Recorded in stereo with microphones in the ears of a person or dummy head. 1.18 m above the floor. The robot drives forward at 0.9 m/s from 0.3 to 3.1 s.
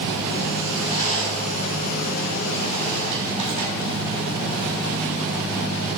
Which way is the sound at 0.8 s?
40° left (ahead or behind).